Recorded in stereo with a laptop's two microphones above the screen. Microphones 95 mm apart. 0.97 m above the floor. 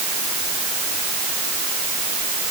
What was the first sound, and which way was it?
Only background noise.